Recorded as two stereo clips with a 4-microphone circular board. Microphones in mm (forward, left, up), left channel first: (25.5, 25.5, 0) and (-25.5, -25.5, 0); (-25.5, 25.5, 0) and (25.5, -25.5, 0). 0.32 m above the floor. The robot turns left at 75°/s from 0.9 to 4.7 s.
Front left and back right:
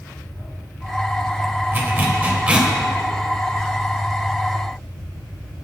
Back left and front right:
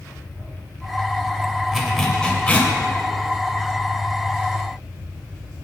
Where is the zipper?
125° right, 1.6 m; by 2.7 s 160° left, 1.6 m.